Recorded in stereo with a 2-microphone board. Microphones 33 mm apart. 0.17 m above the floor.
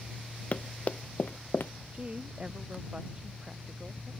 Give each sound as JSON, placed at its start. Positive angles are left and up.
{"t": 0.5, "sound": "running footsteps", "side_deg": 40}
{"t": 1.9, "sound": "a woman speaking", "side_deg": -35}